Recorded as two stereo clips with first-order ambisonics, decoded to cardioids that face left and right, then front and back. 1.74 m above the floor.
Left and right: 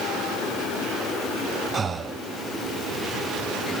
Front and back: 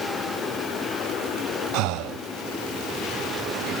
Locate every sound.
1.7 s breathing: 160° right, 0.5 m